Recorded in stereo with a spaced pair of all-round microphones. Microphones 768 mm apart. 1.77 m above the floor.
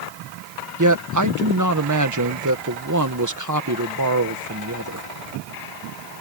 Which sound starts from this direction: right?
A man speaking, at 0.8 s.